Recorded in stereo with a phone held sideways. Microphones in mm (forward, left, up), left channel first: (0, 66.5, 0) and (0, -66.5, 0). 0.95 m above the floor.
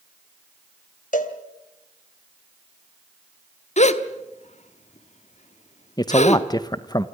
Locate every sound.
1.1 s a cowbell: 75° left (ahead or behind), 1.7 m
3.8 s a gasp: 60° left (ahead or behind), 1.0 m
6.0 s a man speaking: 30° left (ahead or behind), 0.7 m